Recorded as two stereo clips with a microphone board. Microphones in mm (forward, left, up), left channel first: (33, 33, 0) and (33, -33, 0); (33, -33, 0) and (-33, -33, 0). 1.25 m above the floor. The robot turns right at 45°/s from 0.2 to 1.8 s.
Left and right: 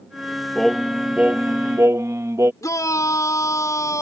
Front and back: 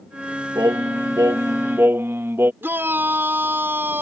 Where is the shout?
125° left.